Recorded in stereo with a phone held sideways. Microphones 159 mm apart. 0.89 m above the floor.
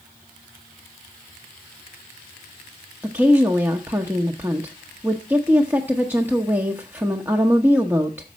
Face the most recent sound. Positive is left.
turn(degrees=-15)  # may be behind; listen again after turning